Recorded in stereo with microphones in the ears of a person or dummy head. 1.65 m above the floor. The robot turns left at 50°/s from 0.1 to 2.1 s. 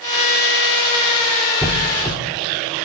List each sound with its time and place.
1.6 s a squeak: 5° right (ahead or behind), 1.3 m; by 2.2 s 5° left (ahead or behind), 1.3 m